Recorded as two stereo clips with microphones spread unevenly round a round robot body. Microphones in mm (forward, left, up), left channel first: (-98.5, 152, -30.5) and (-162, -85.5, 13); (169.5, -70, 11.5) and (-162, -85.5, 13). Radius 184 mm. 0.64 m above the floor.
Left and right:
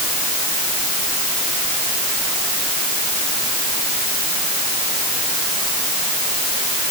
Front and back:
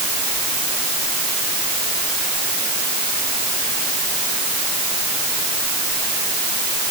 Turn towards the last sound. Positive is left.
No sound to turn to.